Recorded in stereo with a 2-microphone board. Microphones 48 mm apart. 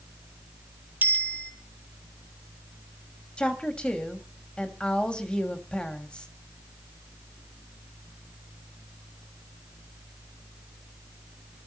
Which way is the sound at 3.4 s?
20° left (ahead or behind).